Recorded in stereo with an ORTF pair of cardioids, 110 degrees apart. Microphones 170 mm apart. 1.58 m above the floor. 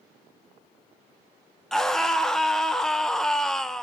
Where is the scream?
5° left, 1.9 m.